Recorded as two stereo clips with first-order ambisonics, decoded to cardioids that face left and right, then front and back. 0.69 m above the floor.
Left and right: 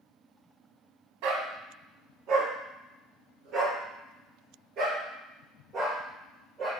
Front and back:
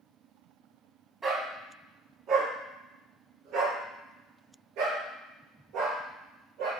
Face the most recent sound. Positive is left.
turn(degrees=-155)